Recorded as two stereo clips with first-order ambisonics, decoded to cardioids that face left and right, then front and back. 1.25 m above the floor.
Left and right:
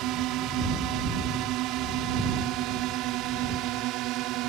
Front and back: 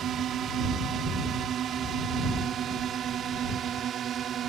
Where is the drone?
125° right.